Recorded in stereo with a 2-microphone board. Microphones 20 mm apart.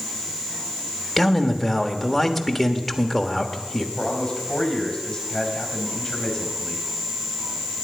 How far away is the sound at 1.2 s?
About 1.3 m.